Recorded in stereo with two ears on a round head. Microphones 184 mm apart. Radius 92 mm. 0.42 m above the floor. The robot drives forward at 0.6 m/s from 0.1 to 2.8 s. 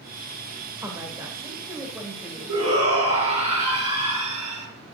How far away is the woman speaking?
About 1.6 m.